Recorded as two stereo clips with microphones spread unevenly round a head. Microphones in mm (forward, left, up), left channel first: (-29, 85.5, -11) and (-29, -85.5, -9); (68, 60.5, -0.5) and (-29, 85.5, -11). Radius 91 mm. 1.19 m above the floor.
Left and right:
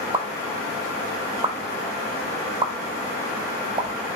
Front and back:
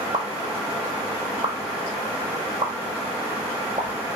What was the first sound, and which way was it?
A pop, 150° right.